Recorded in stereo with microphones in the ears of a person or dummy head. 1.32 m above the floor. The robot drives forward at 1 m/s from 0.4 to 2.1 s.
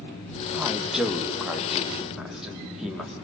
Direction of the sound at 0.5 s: 10° right (ahead or behind).